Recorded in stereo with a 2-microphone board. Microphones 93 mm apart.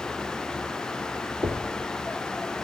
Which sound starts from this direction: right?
Knocking, at 1.4 s.